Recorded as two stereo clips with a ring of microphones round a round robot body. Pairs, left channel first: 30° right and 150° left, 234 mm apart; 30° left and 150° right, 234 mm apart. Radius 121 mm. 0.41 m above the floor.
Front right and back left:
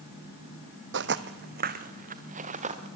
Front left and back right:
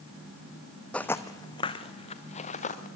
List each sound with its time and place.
0.9 s footsteps: 115° left, 0.8 m; by 2.9 s 90° left, 2 m